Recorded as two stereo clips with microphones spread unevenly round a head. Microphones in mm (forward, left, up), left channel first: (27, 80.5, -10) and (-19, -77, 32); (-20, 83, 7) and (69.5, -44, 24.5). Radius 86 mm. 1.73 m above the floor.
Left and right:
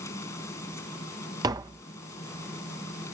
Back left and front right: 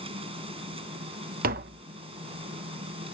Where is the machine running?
Straight ahead.